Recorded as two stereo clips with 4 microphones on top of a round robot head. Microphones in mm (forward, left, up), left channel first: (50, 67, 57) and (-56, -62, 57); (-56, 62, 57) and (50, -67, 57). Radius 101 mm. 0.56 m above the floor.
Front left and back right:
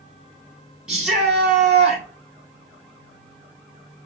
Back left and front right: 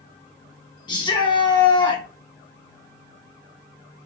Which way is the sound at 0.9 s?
150° left.